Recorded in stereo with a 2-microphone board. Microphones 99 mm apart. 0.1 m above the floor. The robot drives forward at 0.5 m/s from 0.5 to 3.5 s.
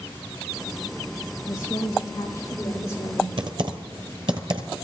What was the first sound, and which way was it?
A woman speaking, 35° left (ahead or behind).